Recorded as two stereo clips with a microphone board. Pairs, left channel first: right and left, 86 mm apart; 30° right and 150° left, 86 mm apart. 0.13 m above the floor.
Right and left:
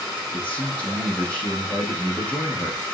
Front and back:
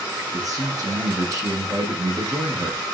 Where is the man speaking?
165° right, 6.5 m.